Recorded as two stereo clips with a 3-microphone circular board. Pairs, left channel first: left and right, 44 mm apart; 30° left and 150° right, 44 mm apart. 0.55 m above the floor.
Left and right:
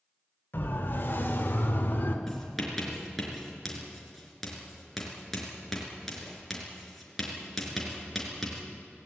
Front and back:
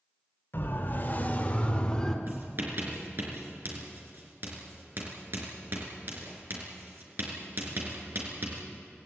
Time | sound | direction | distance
0.5 | a siren | 55° left | 3.5 m
2.3 | writing | 175° left | 5 m